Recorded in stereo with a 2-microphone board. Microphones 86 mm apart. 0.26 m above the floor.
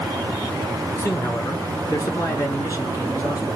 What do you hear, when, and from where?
1.0 s a man speaking: 35° left (ahead or behind), 4 m; by 3.6 s 50° left (ahead or behind), 5 m